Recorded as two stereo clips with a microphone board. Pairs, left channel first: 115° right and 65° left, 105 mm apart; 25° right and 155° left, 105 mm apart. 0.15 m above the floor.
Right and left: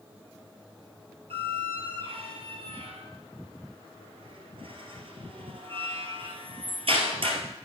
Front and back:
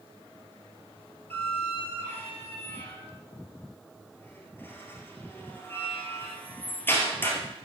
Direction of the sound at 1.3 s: 45° left.